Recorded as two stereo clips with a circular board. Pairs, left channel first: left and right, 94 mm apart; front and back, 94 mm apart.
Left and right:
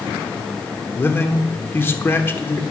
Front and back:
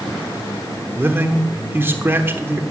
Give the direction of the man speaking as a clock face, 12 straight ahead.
7 o'clock.